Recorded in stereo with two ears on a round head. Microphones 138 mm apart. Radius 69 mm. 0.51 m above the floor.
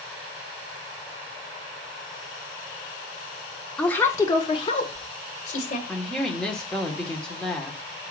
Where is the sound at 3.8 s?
5° left (ahead or behind), 1.0 m; by 5.8 s 50° left (ahead or behind), 2 m.